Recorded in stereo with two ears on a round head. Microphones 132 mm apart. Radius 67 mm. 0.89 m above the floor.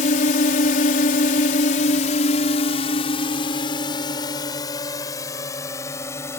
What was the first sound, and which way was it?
A drone, 55° left (ahead or behind).